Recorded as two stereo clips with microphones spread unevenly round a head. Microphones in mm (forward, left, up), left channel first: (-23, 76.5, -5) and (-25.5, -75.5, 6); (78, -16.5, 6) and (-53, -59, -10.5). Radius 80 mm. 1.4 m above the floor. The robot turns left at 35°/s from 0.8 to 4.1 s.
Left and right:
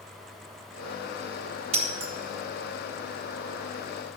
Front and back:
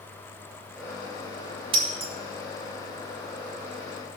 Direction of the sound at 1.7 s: 115° right.